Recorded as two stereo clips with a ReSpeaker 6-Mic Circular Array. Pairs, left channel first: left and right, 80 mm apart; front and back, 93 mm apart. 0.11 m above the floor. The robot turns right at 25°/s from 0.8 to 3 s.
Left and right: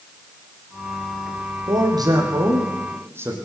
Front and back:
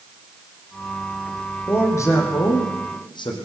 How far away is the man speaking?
About 5.5 m.